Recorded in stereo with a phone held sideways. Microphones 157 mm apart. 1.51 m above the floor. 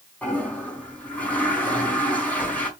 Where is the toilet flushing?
10° left (ahead or behind), 4 m.